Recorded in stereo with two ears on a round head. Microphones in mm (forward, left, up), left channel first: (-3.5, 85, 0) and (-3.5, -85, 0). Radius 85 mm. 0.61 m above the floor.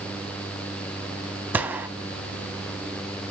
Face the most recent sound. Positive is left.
turn(degrees=-10)  # may be behind; listen again after turning